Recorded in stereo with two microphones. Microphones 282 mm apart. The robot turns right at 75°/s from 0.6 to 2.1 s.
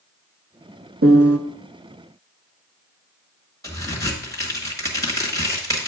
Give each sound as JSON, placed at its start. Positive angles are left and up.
{"t": 1.0, "sound": "a piano", "side_deg": -50, "distance_m": 0.5}
{"t": 3.6, "sound": "a crack", "side_deg": 10, "distance_m": 1.6}